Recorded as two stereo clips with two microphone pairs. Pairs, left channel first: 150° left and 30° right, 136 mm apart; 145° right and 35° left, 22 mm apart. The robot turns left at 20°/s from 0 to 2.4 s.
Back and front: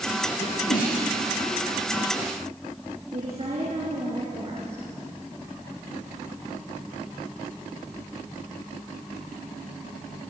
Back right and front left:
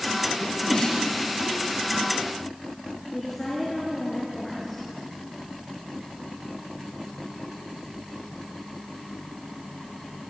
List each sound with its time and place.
0.4 s a sneeze: 170° left, 6 m; by 1.0 s 160° left, 6 m
3.1 s a woman speaking: 70° right, 5 m